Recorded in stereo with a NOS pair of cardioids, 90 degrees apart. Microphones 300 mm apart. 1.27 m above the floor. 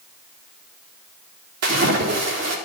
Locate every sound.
1.6 s a splash: 55° right, 4 m